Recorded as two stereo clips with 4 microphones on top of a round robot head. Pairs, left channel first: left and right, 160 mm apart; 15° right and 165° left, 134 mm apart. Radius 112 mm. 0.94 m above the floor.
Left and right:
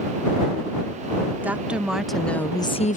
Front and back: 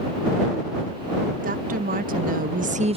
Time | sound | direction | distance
1.4 | a woman speaking | 170° right | ?